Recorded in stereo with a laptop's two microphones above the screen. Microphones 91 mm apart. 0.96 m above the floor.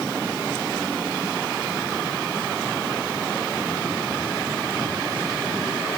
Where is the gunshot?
I don't hear a gunshot.